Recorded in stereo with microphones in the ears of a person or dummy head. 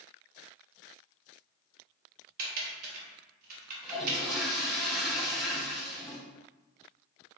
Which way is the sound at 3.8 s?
Centre (ahead or behind).